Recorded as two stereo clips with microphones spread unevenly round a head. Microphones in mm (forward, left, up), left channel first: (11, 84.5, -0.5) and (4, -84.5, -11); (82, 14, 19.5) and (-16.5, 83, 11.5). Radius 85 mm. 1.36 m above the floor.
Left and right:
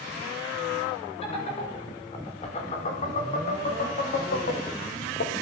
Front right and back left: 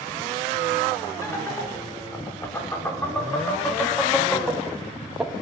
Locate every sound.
1.2 s laughter: 30° left, 7 m; by 5.3 s 60° left, 2.5 m